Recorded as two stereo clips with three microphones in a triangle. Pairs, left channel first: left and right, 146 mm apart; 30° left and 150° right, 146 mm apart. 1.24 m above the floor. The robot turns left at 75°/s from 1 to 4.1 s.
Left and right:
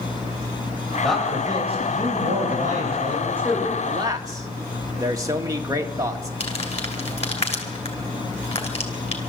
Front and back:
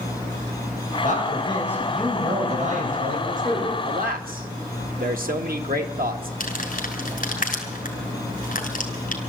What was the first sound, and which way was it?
A man speaking, 10° left.